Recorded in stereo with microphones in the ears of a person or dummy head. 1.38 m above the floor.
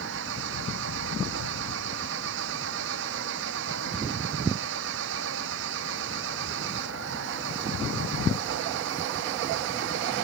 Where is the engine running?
60° right (ahead or behind).